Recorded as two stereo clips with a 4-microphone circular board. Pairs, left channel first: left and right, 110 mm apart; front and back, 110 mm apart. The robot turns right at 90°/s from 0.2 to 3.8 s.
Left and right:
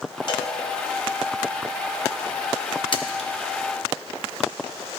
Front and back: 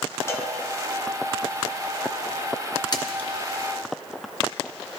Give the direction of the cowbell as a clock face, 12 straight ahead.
10 o'clock.